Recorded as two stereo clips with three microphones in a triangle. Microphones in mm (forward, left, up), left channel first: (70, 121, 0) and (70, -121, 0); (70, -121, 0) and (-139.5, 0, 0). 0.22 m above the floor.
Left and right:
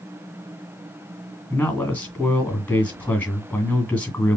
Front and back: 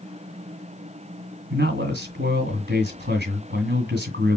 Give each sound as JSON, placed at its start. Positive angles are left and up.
{"t": 1.5, "sound": "a man speaking", "azimuth_deg": 170, "distance_m": 2.0}